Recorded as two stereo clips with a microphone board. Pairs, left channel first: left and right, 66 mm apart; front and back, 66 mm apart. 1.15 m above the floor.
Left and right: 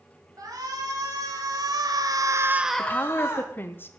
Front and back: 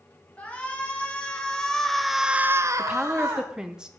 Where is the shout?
70° right, 3.5 m; by 3.5 s 135° left, 1.4 m.